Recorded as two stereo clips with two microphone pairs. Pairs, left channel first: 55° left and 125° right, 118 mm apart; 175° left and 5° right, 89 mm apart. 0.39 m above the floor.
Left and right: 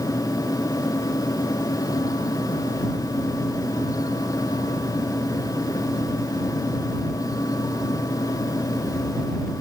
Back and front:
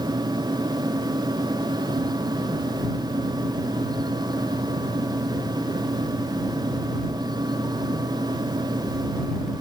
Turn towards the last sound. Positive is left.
No sound to turn to.